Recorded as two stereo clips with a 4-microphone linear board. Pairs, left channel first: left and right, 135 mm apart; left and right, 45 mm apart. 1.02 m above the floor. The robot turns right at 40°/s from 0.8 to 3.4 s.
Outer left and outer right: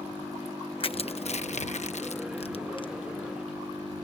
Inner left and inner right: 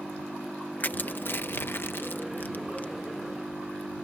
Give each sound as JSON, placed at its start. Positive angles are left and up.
{"t": 0.8, "sound": "crushing", "side_deg": 40}